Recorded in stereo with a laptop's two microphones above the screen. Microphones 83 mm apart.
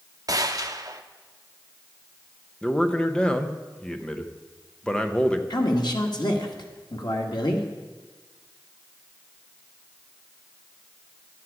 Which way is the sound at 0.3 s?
45° right (ahead or behind).